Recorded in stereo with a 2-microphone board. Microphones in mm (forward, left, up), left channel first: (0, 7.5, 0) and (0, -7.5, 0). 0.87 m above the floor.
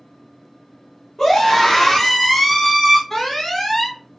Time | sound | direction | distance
1.2 | a scream | 50° left (ahead or behind) | 1.4 m
3.1 | an alarm | 30° left (ahead or behind) | 1.5 m